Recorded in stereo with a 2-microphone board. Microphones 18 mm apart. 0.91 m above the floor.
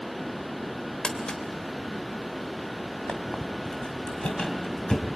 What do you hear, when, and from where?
1.0 s crumpling: 45° left (ahead or behind), 2 m
3.1 s a squeak: 55° left (ahead or behind), 2 m